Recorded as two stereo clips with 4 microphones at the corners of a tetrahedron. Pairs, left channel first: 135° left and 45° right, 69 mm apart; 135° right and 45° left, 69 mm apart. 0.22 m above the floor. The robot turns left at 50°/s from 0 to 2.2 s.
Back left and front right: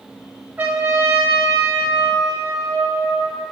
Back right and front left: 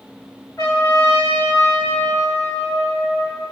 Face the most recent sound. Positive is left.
turn(degrees=175)